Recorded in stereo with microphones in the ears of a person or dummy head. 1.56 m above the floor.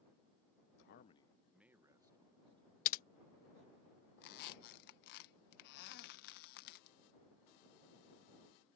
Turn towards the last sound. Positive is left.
turn(degrees=60)  # may be behind; listen again after turning